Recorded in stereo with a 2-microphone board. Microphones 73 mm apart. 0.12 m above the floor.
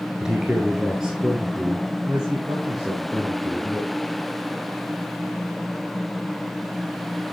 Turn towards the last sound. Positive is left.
turn(degrees=-10)  # may be behind; listen again after turning